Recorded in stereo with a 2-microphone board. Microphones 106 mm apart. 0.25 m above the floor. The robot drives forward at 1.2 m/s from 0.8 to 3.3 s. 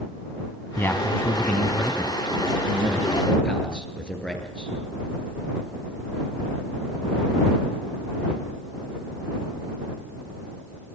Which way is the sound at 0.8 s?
20° left (ahead or behind).